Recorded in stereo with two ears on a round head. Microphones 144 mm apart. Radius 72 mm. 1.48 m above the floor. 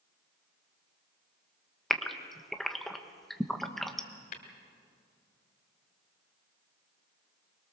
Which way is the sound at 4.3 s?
55° left (ahead or behind).